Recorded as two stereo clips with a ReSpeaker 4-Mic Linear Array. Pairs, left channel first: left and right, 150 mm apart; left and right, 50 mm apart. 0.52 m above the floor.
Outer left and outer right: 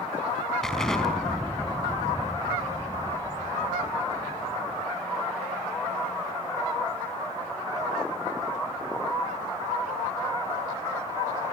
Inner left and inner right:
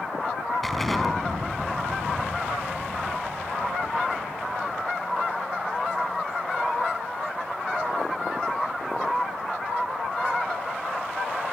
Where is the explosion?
5° left (ahead or behind), 4.5 m.